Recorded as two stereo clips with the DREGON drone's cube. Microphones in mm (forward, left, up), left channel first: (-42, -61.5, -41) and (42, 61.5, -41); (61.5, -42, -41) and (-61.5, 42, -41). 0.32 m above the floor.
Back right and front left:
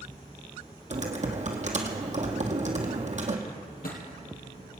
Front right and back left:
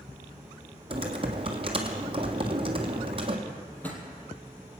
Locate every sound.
0.9 s typing on a keyboard: 95° left, 1.6 m
3.5 s a drawer: 115° right, 2.5 m